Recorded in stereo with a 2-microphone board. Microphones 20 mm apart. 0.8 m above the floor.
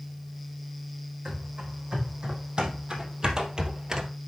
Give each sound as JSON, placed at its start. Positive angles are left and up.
{"t": 1.2, "sound": "running footsteps", "side_deg": -50, "distance_m": 3.5}